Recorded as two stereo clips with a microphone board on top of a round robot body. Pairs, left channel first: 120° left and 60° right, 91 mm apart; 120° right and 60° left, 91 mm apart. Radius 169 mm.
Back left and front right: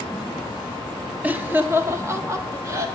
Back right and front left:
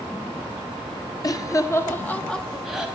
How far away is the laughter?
About 1.6 m.